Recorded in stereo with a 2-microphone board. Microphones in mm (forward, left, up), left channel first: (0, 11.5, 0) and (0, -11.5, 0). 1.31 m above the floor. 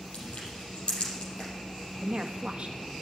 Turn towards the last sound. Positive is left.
turn(degrees=-55)  # may be behind; listen again after turning